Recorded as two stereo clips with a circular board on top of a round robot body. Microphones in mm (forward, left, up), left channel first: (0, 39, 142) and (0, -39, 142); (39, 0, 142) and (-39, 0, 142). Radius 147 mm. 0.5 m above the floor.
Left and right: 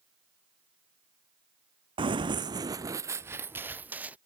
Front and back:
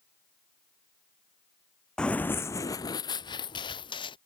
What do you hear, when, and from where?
2.0 s running footsteps: 80° right; by 4.2 s 20° right